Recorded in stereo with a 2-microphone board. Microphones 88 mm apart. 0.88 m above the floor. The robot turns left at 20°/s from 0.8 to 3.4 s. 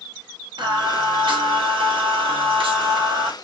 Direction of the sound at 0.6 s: 60° right.